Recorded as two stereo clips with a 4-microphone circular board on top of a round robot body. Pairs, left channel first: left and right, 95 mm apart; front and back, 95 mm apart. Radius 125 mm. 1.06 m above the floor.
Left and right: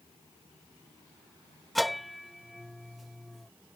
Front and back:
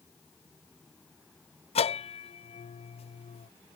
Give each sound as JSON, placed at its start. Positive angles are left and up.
{"t": 1.8, "sound": "a bell", "azimuth_deg": 0}